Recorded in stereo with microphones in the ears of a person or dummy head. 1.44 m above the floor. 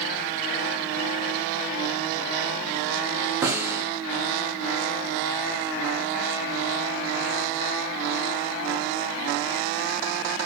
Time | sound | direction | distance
3.4 | a snare drum | 15° right (ahead or behind) | 0.7 m